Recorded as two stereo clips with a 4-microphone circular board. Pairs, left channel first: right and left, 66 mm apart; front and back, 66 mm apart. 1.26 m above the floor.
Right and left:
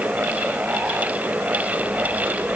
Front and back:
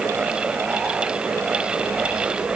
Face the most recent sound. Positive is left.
No sound to turn to.